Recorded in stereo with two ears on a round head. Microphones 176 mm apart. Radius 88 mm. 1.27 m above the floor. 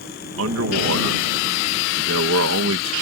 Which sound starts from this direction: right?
A man speaking, at 0.4 s.